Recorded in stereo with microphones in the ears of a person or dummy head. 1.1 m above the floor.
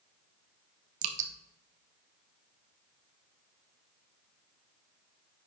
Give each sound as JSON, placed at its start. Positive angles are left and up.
{"t": 1.0, "sound": "dripping", "side_deg": -45, "distance_m": 0.9}